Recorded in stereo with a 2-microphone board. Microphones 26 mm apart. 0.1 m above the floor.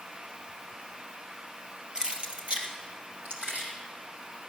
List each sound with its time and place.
1.9 s keys jangling: 30° right (ahead or behind), 1.4 m; by 3.7 s 70° right (ahead or behind), 2.5 m